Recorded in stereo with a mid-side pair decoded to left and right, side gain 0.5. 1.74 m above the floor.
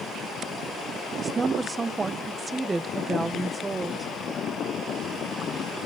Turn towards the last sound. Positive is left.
turn(degrees=-25)